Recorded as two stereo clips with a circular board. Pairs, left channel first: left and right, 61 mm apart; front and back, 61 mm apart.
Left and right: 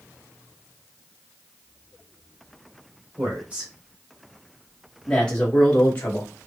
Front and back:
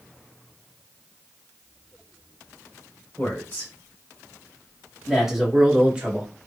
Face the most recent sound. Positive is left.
turn(degrees=130)